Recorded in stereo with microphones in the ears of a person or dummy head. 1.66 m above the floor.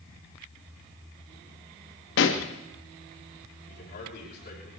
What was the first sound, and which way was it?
A pop, 70° left (ahead or behind).